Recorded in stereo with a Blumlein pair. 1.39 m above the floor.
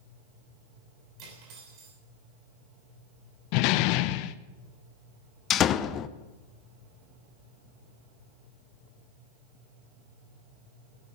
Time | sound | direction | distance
1.2 | cutlery clinking | 40° right | 6 m
3.5 | a door slam | 45° left | 0.6 m
5.5 | a door slam | 30° left | 0.7 m